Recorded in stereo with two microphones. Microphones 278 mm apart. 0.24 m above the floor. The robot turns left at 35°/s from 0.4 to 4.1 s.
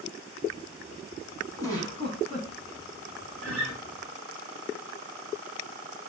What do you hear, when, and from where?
1.6 s a giggle: 165° left, 0.9 m; by 2.5 s 135° left, 0.9 m
3.4 s a guitar: 60° left (ahead or behind), 0.9 m; by 3.8 s 70° left (ahead or behind), 0.9 m